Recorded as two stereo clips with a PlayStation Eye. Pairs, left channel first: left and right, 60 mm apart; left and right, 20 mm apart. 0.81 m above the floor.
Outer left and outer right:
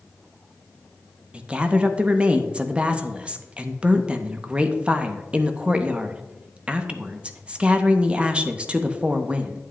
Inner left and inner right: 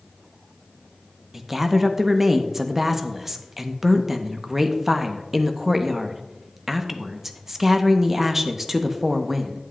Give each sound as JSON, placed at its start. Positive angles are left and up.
{"t": 1.3, "sound": "a woman speaking", "side_deg": -20, "distance_m": 0.7}